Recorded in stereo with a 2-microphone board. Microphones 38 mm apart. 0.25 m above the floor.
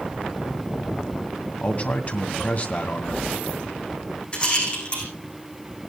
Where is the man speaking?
40° left (ahead or behind), 2 m.